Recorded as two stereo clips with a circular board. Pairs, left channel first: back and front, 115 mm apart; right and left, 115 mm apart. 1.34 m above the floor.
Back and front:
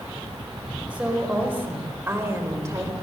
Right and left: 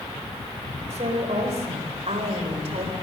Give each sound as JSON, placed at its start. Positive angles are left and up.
{"t": 0.9, "sound": "a woman speaking", "azimuth_deg": 80, "distance_m": 5.0}